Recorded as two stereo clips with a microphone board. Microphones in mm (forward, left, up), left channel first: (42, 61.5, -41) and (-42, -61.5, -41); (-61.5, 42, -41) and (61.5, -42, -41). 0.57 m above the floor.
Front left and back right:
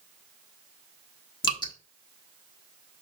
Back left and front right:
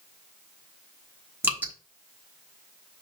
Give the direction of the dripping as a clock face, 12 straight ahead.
11 o'clock.